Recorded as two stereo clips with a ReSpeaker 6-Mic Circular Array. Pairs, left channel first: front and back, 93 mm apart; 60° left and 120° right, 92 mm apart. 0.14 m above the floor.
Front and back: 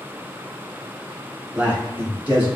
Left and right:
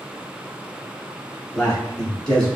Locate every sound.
1.5 s a man speaking: 135° left, 1.4 m